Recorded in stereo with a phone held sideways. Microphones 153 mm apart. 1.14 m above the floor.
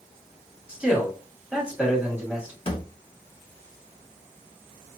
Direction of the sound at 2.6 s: 35° left (ahead or behind).